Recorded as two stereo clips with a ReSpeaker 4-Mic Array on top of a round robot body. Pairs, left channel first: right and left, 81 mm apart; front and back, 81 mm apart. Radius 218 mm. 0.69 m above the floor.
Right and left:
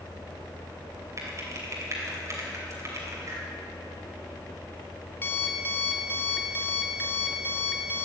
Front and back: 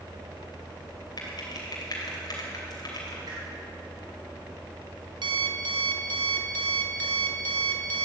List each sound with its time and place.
1.2 s typing on a keyboard: 40° left, 2.5 m
3.3 s a whoosh: 145° left, 4.5 m
5.2 s an alarm clock: 155° right, 0.8 m